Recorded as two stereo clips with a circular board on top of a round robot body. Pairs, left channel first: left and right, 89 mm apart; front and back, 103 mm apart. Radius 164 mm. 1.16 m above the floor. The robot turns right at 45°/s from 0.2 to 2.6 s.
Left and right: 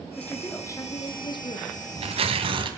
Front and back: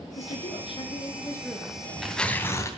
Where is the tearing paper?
105° right, 2.5 m; by 2.7 s 65° right, 2.5 m.